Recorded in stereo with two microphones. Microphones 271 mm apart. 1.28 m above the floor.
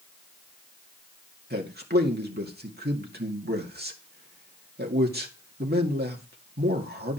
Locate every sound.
1.5 s a man speaking: 35° right (ahead or behind), 2 m